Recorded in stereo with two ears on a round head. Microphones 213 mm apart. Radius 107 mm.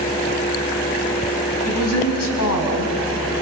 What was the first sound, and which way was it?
A woman speaking, 70° left (ahead or behind).